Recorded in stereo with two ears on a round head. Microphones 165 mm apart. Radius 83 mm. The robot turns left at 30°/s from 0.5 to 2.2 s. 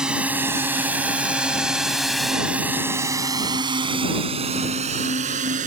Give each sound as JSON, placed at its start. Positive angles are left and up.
{"t": 0.0, "sound": "a drone", "side_deg": -5}